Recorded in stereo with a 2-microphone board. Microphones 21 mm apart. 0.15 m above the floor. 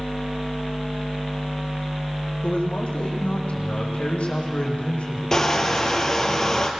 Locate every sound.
2.4 s a man speaking: 70° left (ahead or behind), 7.5 m
5.3 s crushing: 25° left (ahead or behind), 3 m